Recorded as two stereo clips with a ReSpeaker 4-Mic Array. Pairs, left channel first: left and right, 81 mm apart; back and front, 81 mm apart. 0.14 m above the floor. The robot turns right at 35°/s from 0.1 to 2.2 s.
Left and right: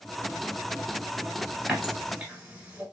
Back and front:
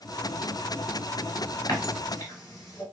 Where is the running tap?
175° right, 1.4 m; by 2.8 s 160° right, 1.4 m.